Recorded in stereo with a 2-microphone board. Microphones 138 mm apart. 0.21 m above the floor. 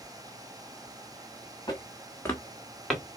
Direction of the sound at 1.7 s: 30° left (ahead or behind).